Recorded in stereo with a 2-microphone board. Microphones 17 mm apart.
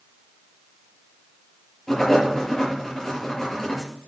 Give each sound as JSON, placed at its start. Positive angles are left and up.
{"t": 1.9, "sound": "writing", "side_deg": 20, "distance_m": 5.5}